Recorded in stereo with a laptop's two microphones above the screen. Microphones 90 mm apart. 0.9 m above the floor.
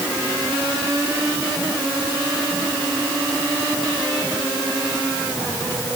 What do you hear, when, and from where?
Only background noise.